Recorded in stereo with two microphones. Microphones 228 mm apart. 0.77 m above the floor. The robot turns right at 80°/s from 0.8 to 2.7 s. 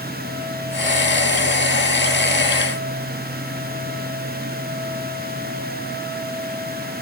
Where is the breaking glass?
I don't hear breaking glass.